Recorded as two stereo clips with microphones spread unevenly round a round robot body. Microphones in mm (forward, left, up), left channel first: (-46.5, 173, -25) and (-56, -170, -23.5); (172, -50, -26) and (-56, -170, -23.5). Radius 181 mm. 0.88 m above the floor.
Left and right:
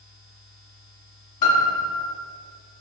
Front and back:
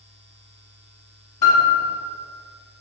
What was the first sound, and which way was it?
A piano, 45° left.